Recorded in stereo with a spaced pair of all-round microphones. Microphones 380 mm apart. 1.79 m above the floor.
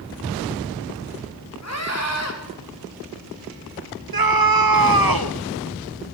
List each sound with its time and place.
1.6 s a scream: 40° left (ahead or behind), 4.5 m
4.1 s a scream: 65° right (ahead or behind), 1.4 m